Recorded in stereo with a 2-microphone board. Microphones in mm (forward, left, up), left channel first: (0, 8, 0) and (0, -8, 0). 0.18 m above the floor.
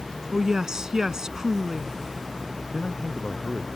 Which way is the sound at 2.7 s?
75° left (ahead or behind).